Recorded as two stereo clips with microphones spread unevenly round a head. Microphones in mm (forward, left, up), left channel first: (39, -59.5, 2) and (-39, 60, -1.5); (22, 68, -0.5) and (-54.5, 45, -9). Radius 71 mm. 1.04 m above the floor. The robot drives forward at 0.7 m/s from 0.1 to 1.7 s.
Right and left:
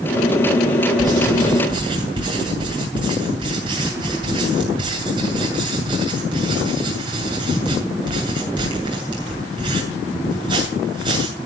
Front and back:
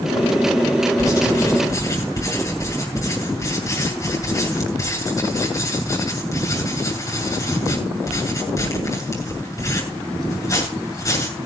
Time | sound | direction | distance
1.0 | writing | 60° left | 7.5 m